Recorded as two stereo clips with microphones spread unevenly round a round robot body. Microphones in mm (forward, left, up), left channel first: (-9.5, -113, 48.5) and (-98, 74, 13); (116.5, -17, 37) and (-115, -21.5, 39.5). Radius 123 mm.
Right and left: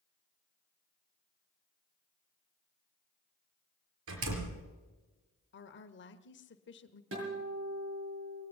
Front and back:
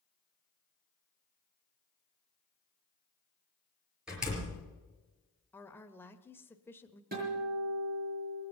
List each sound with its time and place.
4.1 s a door slam: 95° left, 4.5 m
5.5 s a woman speaking: 75° right, 1.3 m
7.1 s a guitar: 130° left, 8 m